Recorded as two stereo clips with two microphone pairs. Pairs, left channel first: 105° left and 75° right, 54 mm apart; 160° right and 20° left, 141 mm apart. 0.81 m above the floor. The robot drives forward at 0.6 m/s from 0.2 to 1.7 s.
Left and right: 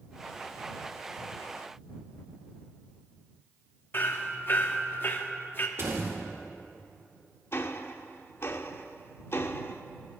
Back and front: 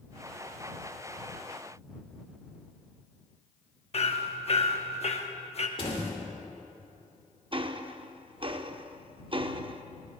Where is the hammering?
160° left, 0.9 m.